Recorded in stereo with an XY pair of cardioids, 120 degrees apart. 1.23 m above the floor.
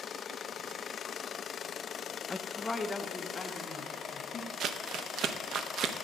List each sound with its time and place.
2.3 s a woman speaking: 20° left, 0.5 m; by 4.5 s 35° left, 1.8 m
4.6 s crumpling: 60° right, 0.7 m